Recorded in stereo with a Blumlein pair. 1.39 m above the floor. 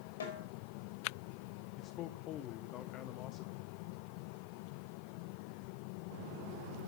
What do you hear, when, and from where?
0.2 s a snare drum: 65° left, 5 m
1.8 s a man speaking: 35° left, 0.9 m